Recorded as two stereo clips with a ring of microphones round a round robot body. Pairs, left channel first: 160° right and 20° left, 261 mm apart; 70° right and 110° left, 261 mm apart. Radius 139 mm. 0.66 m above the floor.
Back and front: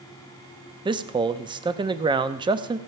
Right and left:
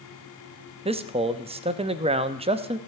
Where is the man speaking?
75° left, 0.7 m.